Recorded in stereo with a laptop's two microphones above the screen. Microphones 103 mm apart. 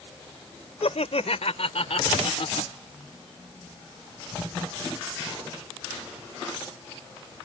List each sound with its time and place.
0.8 s laughter: 80° left